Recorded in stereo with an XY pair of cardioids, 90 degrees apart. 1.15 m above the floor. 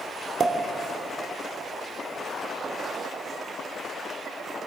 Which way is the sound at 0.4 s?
50° right.